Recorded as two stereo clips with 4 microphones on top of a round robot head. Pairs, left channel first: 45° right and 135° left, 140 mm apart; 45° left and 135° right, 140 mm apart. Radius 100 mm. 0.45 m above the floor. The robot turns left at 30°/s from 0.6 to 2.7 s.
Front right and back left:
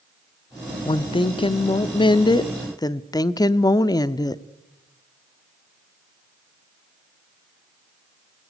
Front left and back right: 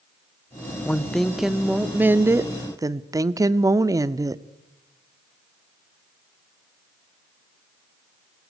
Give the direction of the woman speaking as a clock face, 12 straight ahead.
1 o'clock.